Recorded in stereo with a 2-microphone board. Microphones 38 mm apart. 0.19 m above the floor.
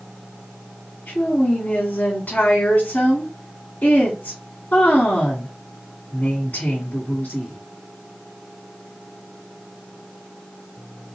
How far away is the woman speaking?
About 1.5 m.